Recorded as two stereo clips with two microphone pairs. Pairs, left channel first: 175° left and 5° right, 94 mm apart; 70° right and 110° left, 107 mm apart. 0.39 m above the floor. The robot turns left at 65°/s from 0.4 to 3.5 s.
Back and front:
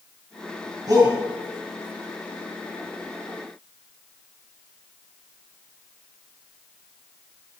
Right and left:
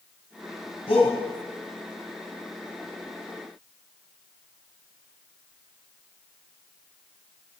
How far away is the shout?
About 2.5 m.